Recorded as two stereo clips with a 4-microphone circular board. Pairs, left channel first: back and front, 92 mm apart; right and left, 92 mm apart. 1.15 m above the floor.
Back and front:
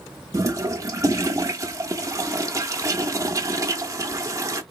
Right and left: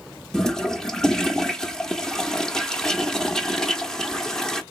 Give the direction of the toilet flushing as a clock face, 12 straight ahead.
12 o'clock.